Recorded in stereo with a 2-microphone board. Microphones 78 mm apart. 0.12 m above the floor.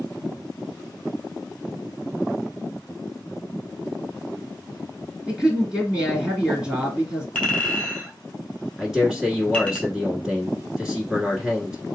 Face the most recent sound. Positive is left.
turn(degrees=-10)  # may be behind; listen again after turning